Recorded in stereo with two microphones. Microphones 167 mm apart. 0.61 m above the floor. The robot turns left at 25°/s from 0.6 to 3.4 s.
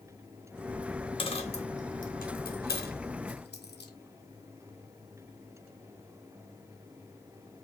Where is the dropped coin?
30° left (ahead or behind), 1.1 m; by 3.9 s 85° left, 1.1 m.